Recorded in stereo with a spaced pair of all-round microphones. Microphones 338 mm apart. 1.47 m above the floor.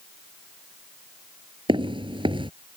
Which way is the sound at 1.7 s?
15° right (ahead or behind).